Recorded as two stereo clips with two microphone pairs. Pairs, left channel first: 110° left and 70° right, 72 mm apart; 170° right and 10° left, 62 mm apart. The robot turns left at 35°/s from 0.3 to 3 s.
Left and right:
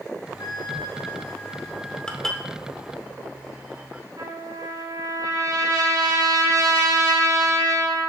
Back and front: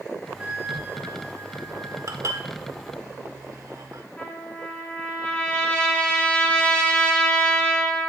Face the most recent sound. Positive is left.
turn(degrees=-95)